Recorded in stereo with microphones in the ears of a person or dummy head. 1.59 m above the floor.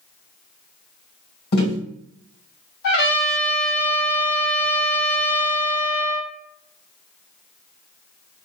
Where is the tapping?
45° left (ahead or behind), 1.5 m.